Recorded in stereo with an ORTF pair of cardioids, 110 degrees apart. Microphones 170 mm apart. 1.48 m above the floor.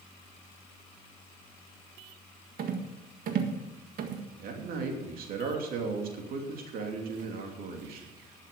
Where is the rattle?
60° right, 1.7 m.